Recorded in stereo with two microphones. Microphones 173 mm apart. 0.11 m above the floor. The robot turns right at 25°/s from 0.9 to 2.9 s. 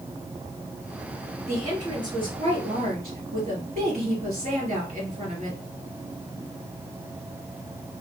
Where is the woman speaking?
155° right, 2 m; by 5.6 s 120° right, 2 m.